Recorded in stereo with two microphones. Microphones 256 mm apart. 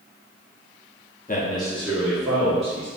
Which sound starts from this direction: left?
A man speaking, at 1.3 s.